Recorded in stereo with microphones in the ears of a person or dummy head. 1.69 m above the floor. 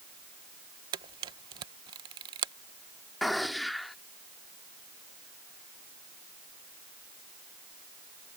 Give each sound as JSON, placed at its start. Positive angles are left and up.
{"t": 0.9, "sound": "a camera shutter", "side_deg": -20}
{"t": 3.2, "sound": "a gunshot", "side_deg": 5}